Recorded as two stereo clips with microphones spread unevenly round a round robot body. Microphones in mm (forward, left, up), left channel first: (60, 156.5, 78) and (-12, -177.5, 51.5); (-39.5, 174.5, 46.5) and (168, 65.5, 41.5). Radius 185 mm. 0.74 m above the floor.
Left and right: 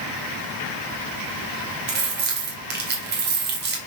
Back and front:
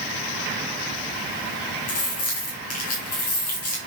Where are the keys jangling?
165° right, 1.8 m.